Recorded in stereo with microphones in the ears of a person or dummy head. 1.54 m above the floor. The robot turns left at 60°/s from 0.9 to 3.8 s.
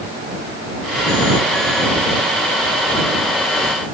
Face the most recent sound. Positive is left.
No sound to turn to.